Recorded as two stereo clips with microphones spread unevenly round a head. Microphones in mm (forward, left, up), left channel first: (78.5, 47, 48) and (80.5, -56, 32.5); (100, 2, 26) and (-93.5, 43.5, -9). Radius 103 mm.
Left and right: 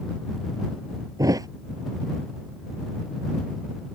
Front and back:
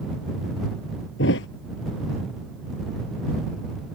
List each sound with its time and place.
1.2 s a thud: 30° right